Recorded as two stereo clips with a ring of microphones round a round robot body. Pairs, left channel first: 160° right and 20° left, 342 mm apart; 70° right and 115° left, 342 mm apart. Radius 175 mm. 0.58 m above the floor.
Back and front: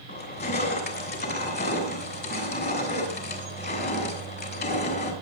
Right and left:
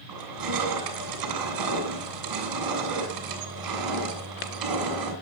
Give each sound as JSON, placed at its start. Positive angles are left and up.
{"t": 0.1, "sound": "crushing", "azimuth_deg": 140, "distance_m": 3.0}